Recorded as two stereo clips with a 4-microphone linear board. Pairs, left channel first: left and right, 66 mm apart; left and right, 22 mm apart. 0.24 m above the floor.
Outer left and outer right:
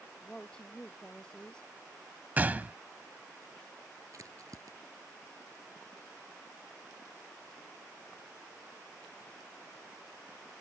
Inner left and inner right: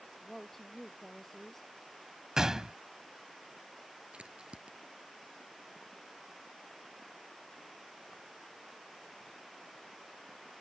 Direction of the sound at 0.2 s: 15° left (ahead or behind).